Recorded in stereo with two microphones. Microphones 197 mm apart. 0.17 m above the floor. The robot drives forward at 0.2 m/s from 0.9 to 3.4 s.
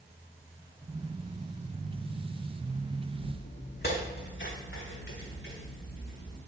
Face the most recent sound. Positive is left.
turn(degrees=75)  # may be behind; listen again after turning